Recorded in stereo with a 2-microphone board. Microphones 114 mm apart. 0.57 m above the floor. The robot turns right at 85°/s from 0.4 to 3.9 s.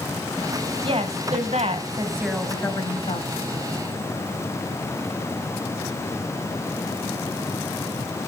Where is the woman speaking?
130° right, 3 m; by 3.3 s 75° left, 3 m.